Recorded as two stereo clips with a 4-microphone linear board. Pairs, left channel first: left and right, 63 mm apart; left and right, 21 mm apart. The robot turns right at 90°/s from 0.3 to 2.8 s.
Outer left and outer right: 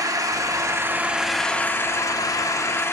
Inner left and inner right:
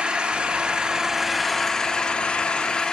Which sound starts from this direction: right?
An engine running, at 0.0 s.